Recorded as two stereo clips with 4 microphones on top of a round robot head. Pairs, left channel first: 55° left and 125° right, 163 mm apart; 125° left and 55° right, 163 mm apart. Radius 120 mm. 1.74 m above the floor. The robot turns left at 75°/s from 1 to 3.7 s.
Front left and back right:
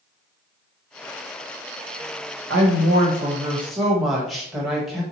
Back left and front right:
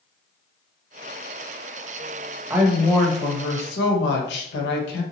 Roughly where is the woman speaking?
Behind right.